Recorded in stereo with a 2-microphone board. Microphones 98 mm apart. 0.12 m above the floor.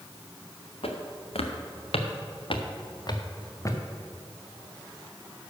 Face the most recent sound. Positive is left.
turn(degrees=30)  # may be behind; listen again after turning